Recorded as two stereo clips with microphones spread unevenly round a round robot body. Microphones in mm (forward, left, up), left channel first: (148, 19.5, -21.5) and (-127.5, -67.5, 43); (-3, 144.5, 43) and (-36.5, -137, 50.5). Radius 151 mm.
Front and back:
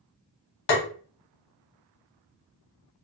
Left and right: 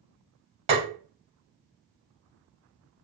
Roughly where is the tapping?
Ahead right.